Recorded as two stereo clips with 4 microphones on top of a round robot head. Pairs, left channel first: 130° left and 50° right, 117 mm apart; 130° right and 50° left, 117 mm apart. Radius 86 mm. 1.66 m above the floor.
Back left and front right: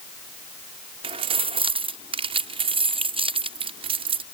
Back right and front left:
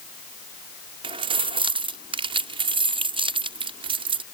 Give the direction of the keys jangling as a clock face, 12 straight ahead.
12 o'clock.